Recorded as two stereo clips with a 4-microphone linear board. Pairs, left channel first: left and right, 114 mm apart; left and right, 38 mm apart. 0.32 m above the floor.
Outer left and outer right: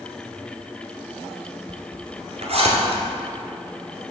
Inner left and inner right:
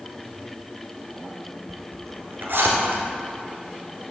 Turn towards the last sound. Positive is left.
turn(degrees=-60)  # may be behind; listen again after turning